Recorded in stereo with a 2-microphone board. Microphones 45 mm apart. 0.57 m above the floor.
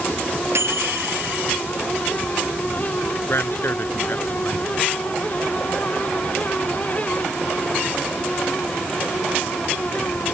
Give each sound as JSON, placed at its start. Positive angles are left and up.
{"t": 0.6, "sound": "a microwave", "side_deg": -70}
{"t": 3.3, "sound": "a man speaking", "side_deg": 60}